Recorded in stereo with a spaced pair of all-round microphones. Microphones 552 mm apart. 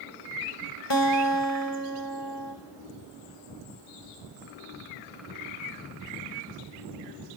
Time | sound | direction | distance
0.9 | a guitar | 50° left (ahead or behind) | 2.5 m